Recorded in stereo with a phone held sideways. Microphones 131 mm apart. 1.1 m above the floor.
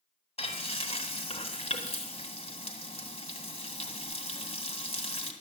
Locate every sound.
0.4 s frying: 50° left (ahead or behind), 2 m